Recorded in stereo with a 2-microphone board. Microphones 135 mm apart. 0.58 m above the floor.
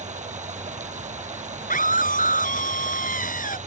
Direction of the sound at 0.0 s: 60° right (ahead or behind).